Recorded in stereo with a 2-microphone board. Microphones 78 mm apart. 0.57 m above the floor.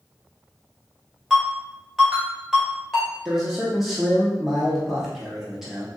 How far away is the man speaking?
About 0.7 m.